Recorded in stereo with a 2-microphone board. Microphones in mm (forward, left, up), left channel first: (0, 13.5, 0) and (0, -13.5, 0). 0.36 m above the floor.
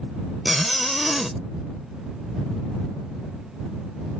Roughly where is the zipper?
Centre.